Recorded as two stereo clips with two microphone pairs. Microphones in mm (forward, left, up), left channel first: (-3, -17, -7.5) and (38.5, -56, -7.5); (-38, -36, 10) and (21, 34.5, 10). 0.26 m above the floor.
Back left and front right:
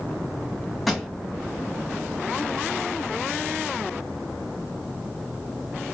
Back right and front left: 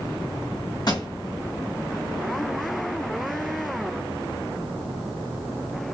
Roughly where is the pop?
Behind right.